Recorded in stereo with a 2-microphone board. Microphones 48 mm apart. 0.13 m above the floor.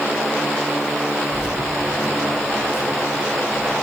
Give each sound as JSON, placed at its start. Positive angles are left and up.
{"t": 1.3, "sound": "keys jangling", "side_deg": 80, "distance_m": 6.5}